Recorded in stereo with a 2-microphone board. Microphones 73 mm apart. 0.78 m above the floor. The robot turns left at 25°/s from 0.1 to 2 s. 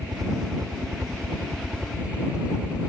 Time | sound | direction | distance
0.0 | a helicopter | 120° right | ?